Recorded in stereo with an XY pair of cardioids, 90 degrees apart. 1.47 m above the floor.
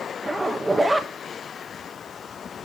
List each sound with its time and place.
0.2 s a zipper: 15° right, 1.4 m